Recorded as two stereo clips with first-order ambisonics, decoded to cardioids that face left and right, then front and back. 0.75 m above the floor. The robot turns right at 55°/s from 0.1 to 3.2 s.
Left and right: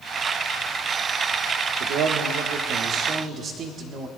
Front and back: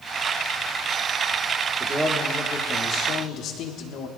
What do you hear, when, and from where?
1.8 s a man speaking: 115° right, 1.6 m; by 4.1 s 35° right, 1.6 m